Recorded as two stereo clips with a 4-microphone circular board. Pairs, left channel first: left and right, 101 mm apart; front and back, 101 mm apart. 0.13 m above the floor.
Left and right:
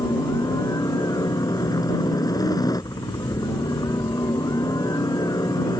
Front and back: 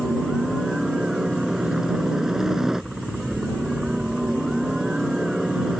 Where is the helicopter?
100° left.